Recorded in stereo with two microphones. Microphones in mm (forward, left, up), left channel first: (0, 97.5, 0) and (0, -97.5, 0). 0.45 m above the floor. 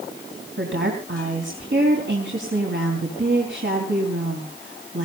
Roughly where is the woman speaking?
Right.